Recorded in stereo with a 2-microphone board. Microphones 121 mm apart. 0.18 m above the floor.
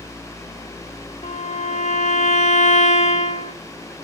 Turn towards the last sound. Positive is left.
turn(degrees=85)